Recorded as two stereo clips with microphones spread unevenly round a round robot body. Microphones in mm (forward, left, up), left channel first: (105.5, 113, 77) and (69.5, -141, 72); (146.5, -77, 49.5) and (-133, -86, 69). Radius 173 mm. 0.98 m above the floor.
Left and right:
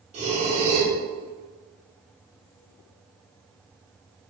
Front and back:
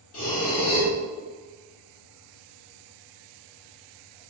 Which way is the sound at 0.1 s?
35° right.